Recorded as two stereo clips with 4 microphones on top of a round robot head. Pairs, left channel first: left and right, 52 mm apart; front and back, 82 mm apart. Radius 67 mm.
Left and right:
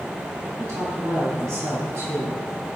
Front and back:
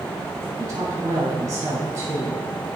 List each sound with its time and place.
0.6 s a woman speaking: 125° right, 4.5 m